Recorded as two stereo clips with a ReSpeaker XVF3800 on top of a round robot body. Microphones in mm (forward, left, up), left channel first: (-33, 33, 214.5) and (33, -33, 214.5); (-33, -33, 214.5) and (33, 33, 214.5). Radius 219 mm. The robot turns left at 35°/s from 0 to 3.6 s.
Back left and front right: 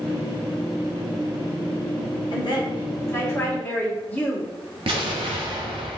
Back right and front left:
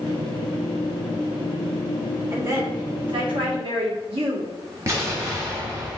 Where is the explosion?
15° right, 0.6 m.